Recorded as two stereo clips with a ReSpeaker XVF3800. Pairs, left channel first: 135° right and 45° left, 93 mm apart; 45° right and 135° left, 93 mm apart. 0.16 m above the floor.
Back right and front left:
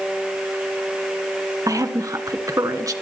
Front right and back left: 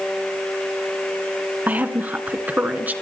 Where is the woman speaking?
70° left, 1.8 m.